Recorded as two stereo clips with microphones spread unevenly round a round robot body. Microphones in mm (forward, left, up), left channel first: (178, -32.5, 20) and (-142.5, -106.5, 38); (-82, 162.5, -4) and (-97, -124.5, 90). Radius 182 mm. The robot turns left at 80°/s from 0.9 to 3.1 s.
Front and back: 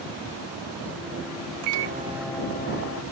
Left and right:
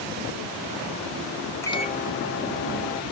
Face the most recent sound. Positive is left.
turn(degrees=35)